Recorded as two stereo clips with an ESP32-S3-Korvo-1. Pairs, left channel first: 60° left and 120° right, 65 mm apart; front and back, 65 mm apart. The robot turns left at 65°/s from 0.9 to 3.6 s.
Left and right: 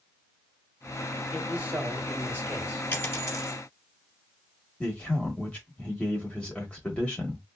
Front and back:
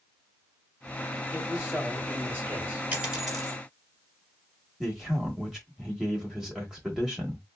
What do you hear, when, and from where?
1.3 s a man speaking: 90° right, 1.8 m; by 2.8 s 170° left, 1.8 m
2.9 s a dropped coin: 115° left, 1.6 m; by 3.6 s 75° left, 1.6 m
4.8 s a man speaking: 105° left, 1.1 m